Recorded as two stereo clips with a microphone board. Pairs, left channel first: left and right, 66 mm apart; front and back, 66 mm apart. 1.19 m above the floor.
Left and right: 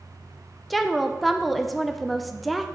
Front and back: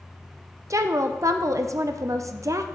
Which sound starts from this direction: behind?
A woman speaking, at 0.7 s.